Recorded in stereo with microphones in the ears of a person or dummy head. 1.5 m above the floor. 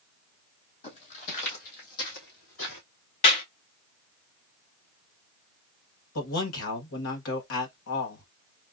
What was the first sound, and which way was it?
Footsteps, 40° left (ahead or behind).